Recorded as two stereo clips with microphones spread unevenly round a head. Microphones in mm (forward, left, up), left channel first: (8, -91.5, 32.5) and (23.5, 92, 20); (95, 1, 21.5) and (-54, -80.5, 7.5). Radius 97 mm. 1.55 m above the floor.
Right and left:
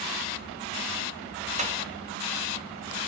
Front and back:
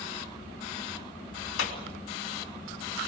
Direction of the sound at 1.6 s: 30° left.